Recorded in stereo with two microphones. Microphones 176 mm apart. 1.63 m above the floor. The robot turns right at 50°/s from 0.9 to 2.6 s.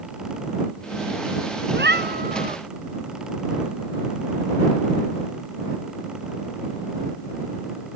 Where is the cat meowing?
90° right; by 2.6 s 45° right.